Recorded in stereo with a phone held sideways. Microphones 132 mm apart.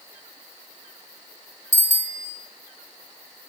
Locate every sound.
1.7 s a bicycle bell: 60° left (ahead or behind), 2 m